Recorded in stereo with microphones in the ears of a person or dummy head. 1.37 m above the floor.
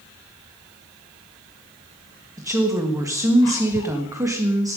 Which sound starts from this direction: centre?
A woman speaking, at 2.4 s.